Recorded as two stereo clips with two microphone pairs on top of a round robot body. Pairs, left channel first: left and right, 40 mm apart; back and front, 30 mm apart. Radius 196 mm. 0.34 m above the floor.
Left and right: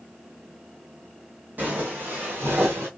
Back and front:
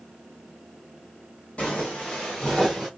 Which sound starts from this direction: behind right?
Footsteps, at 1.6 s.